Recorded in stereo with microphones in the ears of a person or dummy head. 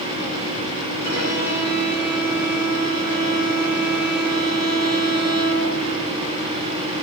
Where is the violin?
60° left (ahead or behind), 6.5 m.